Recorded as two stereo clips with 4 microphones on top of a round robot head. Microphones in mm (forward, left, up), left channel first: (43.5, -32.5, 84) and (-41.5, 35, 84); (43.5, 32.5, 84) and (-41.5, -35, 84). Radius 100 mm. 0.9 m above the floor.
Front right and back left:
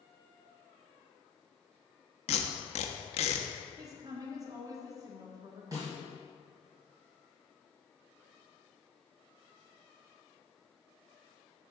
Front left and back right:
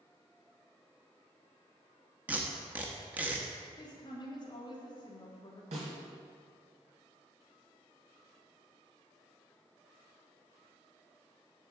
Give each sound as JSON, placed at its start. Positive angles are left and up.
{"t": 2.3, "sound": "tape being pulled", "azimuth_deg": -65, "distance_m": 0.6}
{"t": 3.8, "sound": "a woman speaking", "azimuth_deg": 85, "distance_m": 1.6}
{"t": 5.7, "sound": "a snare drum", "azimuth_deg": -160, "distance_m": 1.9}